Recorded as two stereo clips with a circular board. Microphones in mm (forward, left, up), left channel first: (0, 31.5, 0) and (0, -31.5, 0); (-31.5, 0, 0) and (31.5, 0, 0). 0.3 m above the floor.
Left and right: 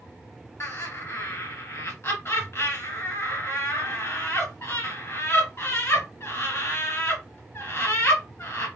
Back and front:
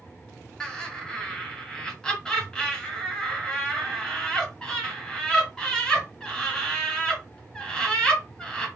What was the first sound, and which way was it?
Laughter, 105° left.